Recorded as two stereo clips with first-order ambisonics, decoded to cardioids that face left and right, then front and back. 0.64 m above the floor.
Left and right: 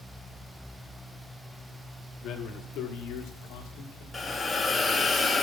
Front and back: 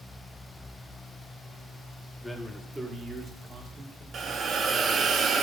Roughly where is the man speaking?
Left.